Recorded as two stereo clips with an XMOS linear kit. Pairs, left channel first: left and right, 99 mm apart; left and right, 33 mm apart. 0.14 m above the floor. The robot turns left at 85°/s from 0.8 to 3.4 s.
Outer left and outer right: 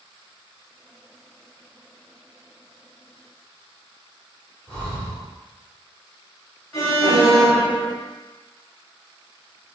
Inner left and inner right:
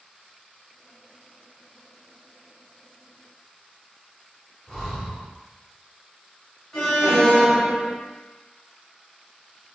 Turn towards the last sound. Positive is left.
turn(degrees=0)  # may be behind; listen again after turning